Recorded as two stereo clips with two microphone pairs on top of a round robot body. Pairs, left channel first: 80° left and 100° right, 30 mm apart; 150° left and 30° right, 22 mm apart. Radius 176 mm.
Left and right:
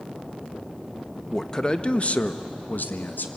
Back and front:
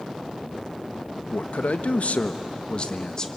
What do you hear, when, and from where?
1.3 s a man speaking: 165° left, 1.4 m; by 3.3 s 80° left, 1.7 m